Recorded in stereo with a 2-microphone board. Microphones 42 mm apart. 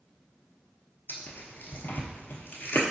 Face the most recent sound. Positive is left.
turn(degrees=60)  # may be behind; listen again after turning